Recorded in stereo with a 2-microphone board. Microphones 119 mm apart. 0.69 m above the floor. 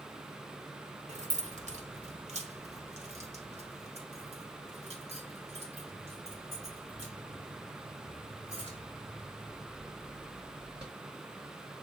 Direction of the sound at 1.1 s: 70° right (ahead or behind).